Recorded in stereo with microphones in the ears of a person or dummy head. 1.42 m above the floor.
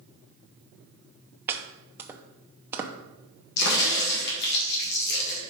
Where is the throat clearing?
No throat clearing in this recording.